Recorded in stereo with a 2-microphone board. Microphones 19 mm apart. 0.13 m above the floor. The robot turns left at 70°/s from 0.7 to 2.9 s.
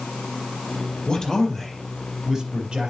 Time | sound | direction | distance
1.1 | a man speaking | 60° left | 4 m